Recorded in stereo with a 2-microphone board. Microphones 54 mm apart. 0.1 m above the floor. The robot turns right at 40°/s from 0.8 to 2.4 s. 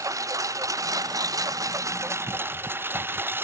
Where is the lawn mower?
70° right (ahead or behind); by 3.4 s 40° right (ahead or behind).